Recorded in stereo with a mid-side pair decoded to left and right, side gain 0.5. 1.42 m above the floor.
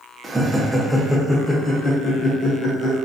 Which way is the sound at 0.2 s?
15° right.